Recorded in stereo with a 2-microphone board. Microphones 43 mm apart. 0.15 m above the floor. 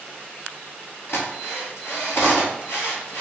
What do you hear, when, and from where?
1.1 s a drill: 65° left (ahead or behind), 1.6 m